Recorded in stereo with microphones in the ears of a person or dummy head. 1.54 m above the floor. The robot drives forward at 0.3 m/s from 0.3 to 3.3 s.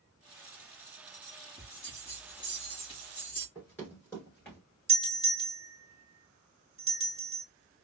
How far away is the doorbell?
About 1.4 m.